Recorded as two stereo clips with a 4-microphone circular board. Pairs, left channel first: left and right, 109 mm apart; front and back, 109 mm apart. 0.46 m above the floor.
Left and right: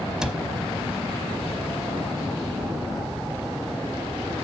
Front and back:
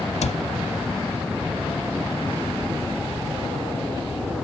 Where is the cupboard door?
5° right, 0.8 m.